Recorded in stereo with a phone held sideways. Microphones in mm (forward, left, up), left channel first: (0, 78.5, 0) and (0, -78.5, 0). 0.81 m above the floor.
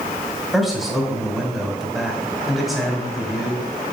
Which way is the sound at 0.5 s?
Centre (ahead or behind).